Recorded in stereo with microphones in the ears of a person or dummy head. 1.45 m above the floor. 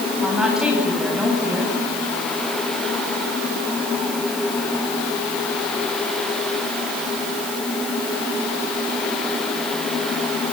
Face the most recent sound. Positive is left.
turn(degrees=-5)  # may be behind; listen again after turning